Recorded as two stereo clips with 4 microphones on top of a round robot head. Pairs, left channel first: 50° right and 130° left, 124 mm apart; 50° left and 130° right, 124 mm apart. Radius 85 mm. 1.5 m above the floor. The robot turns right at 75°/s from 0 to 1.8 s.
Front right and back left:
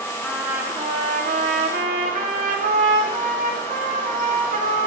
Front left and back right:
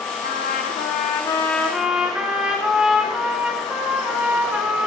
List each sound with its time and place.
0.2 s a trumpet: 30° left, 2.5 m; by 4.9 s 150° left, 2.5 m